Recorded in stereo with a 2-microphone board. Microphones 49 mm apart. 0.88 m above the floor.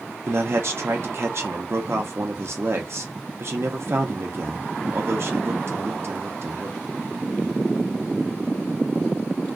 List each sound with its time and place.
0.3 s a man speaking: 55° right (ahead or behind), 0.5 m